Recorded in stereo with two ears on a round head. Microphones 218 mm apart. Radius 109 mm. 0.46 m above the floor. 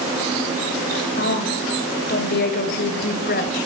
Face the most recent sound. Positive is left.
turn(degrees=40)  # may be behind; listen again after turning